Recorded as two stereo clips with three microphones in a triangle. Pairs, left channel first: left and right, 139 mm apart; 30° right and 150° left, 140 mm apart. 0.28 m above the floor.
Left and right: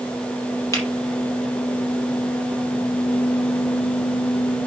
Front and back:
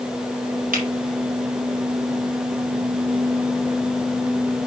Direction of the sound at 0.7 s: 160° left.